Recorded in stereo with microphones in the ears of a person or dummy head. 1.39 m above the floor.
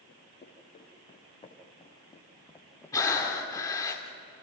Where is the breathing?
20° left (ahead or behind), 2 m.